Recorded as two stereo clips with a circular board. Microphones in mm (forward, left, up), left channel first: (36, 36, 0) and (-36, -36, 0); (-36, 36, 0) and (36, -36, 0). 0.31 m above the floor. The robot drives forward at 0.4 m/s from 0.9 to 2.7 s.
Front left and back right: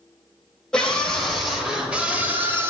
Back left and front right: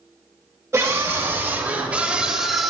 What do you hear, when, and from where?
0.7 s a scream: 30° right, 1.0 m; by 2.7 s 135° right, 0.9 m